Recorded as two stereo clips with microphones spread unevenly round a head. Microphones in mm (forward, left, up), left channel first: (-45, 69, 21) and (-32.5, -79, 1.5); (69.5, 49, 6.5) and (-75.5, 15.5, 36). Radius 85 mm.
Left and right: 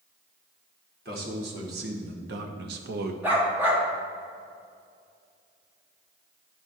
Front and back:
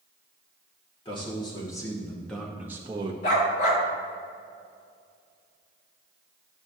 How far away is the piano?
I don't hear a piano.